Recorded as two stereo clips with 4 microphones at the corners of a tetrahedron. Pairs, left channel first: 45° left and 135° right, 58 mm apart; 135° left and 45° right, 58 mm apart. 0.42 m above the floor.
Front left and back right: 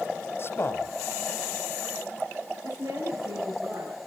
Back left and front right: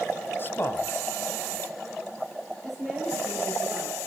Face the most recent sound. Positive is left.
turn(degrees=-135)